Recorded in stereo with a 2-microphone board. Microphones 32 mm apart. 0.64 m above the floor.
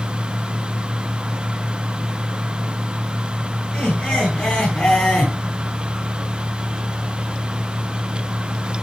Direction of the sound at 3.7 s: 25° left (ahead or behind).